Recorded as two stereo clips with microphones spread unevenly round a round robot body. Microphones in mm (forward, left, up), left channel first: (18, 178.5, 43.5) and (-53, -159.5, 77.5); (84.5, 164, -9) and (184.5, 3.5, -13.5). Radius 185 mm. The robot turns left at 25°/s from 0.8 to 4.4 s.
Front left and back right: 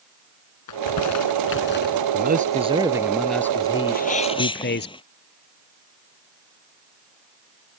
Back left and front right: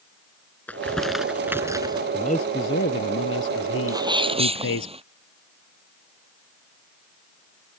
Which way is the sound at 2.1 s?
165° right.